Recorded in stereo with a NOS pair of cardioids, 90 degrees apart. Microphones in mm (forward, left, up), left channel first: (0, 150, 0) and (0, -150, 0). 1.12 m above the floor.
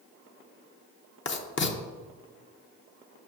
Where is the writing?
40° left, 0.9 m.